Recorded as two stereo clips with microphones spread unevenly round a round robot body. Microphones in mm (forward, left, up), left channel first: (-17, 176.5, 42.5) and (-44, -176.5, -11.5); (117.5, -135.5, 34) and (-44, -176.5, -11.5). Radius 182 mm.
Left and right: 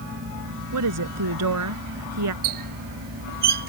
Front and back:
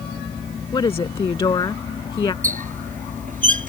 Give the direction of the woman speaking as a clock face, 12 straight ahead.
2 o'clock.